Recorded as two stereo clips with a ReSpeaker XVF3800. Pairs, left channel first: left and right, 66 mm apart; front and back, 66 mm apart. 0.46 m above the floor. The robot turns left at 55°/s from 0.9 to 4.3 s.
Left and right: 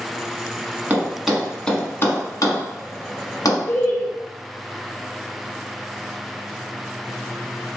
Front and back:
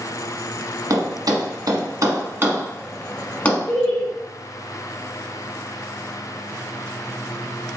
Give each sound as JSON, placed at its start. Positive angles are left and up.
{"t": 0.9, "sound": "a thud", "azimuth_deg": -155, "distance_m": 1.1}
{"t": 3.7, "sound": "laughter", "azimuth_deg": 95, "distance_m": 1.4}